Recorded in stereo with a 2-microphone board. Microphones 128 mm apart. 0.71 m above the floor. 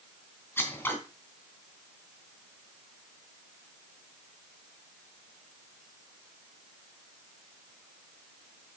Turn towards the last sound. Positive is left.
turn(degrees=15)  # may be behind; listen again after turning